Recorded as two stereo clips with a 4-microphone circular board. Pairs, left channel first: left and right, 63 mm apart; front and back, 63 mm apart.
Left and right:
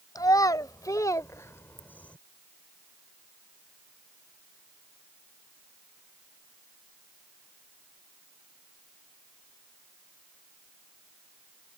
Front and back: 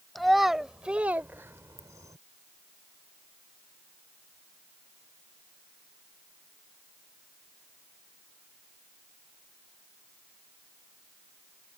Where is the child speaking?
90° left; by 2.2 s 160° left.